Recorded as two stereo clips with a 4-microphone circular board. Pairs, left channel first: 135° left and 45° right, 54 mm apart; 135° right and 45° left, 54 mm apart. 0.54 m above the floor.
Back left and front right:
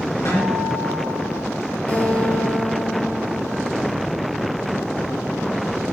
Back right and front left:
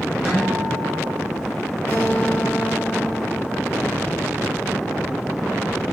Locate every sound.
0.2 s a guitar: 130° left, 3.5 m
1.9 s a guitar: 170° right, 1.8 m